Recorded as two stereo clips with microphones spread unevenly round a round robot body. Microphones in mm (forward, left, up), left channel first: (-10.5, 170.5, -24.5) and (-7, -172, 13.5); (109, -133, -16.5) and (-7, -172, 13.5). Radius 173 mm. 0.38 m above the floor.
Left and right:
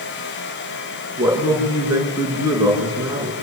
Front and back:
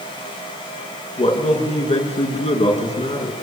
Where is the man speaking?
5° right, 6 m.